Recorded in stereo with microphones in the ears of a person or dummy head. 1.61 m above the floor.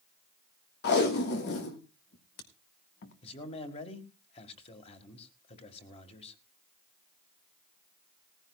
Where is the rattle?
I don't hear a rattle.